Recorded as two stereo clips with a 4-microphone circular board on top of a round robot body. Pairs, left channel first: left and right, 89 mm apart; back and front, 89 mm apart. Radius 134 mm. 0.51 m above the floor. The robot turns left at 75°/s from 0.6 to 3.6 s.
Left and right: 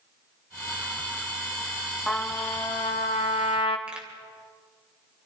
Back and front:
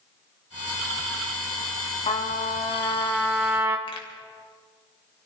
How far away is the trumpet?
About 1.0 m.